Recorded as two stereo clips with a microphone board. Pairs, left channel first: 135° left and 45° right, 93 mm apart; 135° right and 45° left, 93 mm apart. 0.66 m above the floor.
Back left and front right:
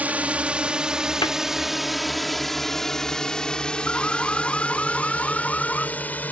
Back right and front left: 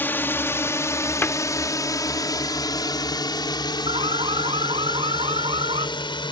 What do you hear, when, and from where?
0.0 s a drone: 95° right; by 6.3 s 155° right
1.2 s a cupboard door: 160° left
3.9 s an alarm: 55° left